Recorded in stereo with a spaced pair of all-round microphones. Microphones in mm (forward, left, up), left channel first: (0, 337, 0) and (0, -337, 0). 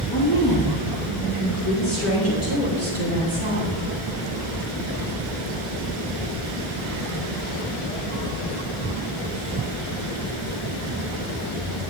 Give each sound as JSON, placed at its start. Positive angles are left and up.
{"t": 0.1, "sound": "a woman speaking", "side_deg": 35, "distance_m": 3.0}